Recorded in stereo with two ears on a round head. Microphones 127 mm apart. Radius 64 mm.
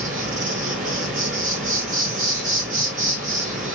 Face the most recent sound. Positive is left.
turn(degrees=-55)  # may be behind; listen again after turning